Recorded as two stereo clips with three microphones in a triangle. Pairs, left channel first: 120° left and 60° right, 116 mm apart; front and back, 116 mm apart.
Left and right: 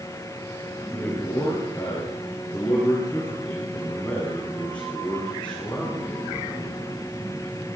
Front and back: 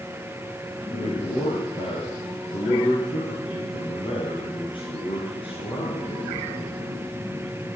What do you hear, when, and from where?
0.9 s a man speaking: 45° left, 8 m; by 6.9 s 40° left, 11.5 m